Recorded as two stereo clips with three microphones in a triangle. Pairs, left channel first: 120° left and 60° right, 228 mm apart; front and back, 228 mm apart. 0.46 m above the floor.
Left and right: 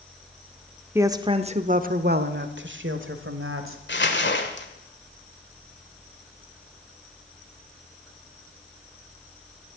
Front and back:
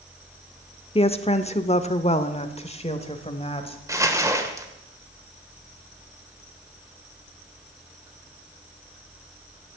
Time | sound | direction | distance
0.9 | a woman speaking | 5° left | 0.8 m
3.9 | crumpling | 105° left | 1.7 m